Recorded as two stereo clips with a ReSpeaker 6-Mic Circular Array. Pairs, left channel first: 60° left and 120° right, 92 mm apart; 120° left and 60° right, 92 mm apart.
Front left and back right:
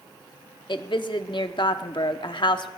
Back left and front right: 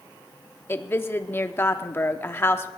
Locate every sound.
0.7 s a woman speaking: 60° left, 0.7 m